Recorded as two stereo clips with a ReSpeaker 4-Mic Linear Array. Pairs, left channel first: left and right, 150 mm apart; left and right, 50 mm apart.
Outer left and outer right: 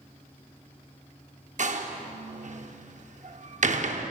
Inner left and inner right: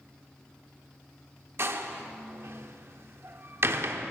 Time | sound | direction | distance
1.6 | a door slam | 55° right (ahead or behind) | 0.6 m